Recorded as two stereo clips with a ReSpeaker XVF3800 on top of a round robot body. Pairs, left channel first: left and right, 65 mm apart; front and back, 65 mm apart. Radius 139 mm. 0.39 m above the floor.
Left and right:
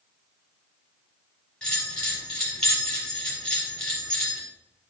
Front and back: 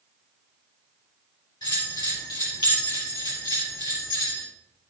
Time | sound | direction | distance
1.6 | a bell | 10° left | 4 m